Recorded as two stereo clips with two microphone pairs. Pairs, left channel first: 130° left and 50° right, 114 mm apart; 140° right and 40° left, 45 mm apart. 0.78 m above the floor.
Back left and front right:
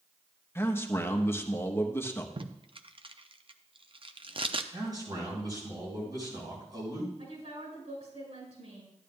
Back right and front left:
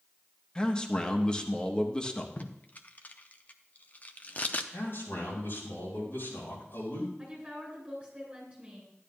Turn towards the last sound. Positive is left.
turn(degrees=-25)